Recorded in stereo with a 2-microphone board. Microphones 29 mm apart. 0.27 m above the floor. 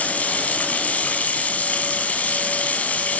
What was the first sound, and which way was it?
Running water, 60° left (ahead or behind).